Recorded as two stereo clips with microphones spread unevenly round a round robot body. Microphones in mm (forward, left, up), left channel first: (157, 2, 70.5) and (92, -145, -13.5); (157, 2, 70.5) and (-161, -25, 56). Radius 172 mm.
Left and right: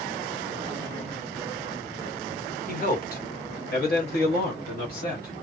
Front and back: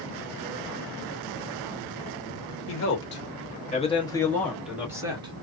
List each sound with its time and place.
2.7 s a man speaking: 25° left, 1.5 m; by 5.3 s 125° left, 1.5 m